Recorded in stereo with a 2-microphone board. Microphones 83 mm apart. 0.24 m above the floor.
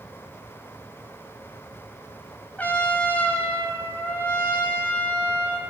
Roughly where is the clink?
I don't hear a clink.